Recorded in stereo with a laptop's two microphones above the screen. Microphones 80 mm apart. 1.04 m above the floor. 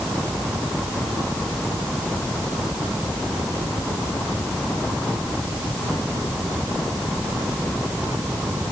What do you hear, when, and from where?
Only background noise.